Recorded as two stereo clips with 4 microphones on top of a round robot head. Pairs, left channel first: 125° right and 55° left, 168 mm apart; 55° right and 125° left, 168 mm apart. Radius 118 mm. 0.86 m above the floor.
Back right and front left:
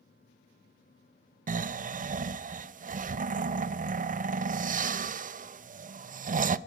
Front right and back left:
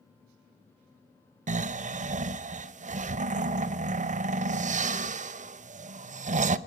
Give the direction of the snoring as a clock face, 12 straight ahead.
9 o'clock.